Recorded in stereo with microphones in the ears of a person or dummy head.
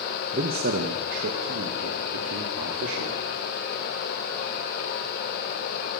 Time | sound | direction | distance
0.3 | a man speaking | 45° right (ahead or behind) | 1.2 m